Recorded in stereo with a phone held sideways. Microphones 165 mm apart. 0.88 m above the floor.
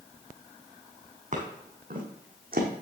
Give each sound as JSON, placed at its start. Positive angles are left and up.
{"t": 1.3, "sound": "footsteps", "side_deg": -50, "distance_m": 2.5}